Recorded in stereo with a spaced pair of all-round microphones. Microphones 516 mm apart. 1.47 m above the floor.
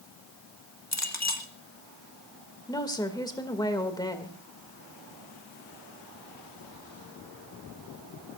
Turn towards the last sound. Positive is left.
turn(degrees=10)  # may be behind; listen again after turning